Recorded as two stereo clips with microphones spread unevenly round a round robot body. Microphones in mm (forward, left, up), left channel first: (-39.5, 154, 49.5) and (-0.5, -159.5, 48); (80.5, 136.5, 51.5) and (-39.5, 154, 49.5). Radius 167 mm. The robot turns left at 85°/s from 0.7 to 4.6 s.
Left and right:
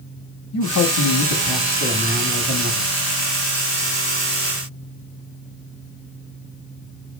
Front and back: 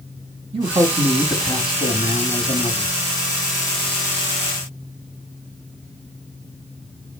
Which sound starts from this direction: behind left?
A man speaking, at 0.5 s.